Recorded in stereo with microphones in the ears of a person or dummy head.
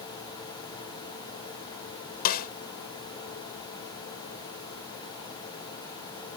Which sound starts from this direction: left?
A snare drum, at 2.2 s.